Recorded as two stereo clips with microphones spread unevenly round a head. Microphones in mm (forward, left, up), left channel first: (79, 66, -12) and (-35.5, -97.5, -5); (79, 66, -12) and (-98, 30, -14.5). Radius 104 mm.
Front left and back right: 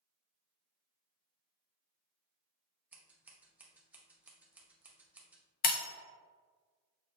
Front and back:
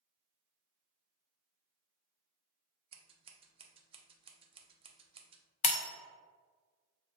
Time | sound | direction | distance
2.9 | scissors | 160° left | 0.6 m
5.6 | breaking glass | 40° left | 0.8 m